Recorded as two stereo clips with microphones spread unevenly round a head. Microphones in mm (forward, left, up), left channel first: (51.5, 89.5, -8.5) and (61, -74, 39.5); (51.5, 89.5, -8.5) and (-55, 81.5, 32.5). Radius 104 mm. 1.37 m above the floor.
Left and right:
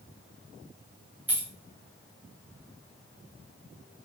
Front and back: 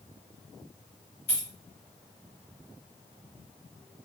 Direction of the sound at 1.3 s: 10° right.